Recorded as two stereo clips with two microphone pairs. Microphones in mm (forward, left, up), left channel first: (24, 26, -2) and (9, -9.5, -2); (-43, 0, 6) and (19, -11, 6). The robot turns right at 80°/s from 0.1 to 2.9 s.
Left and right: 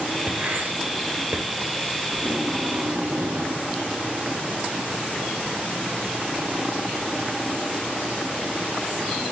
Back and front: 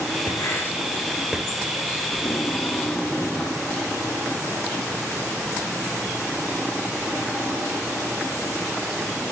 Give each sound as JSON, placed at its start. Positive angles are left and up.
{"t": 0.3, "sound": "writing", "azimuth_deg": -175, "distance_m": 2.0}
{"t": 2.1, "sound": "tape being pulled", "azimuth_deg": 175, "distance_m": 3.0}